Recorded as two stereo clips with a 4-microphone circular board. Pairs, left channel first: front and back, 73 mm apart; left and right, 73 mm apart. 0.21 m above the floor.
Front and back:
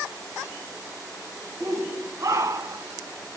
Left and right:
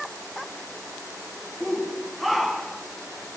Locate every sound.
1.6 s a shout: 175° right, 1.5 m